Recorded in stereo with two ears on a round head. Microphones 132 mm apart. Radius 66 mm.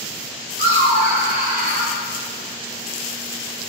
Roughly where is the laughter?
Right.